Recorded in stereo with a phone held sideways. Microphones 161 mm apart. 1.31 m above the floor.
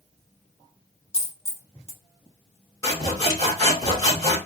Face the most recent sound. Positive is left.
turn(degrees=25)  # may be behind; listen again after turning